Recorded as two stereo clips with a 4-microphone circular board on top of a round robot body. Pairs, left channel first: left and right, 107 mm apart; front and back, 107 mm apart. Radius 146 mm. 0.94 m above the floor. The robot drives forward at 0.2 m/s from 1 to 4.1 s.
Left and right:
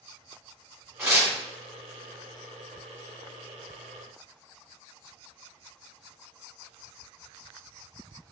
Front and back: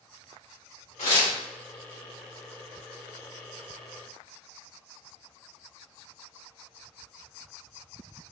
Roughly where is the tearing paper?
Ahead.